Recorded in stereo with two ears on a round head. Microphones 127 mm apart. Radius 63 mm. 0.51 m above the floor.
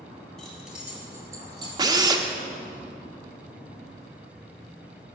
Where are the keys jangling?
Centre (ahead or behind), 3 m; by 1.7 s 30° right (ahead or behind), 2.5 m.